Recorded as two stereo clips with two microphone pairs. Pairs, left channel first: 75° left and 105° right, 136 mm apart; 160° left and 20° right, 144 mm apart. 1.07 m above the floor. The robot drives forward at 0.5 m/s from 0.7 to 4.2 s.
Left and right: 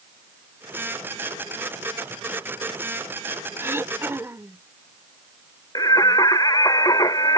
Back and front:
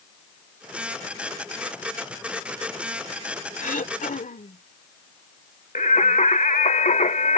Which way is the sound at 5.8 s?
130° left.